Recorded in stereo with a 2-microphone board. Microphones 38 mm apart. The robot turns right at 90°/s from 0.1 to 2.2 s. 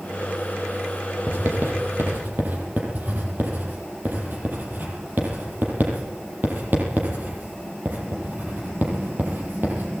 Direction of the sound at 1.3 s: 45° right (ahead or behind).